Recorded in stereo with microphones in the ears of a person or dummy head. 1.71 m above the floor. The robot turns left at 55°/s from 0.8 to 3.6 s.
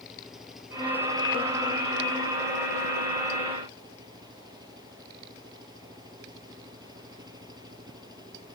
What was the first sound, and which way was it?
An engine running, straight ahead.